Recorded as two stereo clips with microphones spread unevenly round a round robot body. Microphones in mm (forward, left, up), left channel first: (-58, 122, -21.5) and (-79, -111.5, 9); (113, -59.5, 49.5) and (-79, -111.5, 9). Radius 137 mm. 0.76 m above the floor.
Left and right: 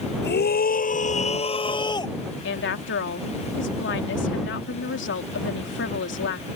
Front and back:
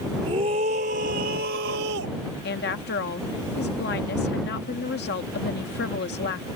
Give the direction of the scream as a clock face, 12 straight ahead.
8 o'clock.